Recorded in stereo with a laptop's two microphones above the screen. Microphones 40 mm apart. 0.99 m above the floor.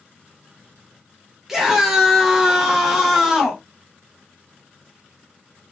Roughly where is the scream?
Centre.